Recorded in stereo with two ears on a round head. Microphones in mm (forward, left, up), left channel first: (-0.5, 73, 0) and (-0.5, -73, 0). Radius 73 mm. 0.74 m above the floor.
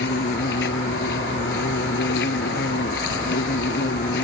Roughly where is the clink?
I don't hear a clink.